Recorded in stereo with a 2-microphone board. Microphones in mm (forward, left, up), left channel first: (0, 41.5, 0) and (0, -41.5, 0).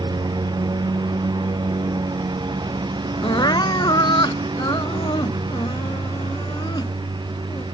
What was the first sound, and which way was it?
A lawn mower, 55° right (ahead or behind).